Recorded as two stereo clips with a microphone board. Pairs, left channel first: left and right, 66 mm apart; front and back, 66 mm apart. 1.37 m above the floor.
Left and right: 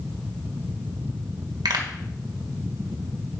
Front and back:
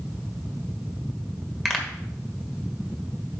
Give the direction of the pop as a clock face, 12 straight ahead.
3 o'clock.